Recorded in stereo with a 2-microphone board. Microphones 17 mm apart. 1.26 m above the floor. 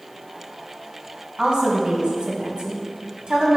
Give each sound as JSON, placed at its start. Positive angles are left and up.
{"t": 1.4, "sound": "a woman speaking", "side_deg": -60, "distance_m": 1.5}